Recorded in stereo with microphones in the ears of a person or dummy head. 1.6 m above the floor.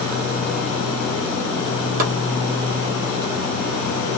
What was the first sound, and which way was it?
Chopping, 55° right (ahead or behind).